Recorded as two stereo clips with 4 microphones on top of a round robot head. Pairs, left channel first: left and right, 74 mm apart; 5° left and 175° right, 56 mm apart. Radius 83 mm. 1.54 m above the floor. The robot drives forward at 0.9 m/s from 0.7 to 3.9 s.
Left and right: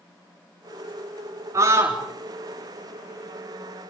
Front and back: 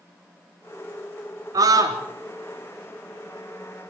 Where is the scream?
150° right, 3.5 m.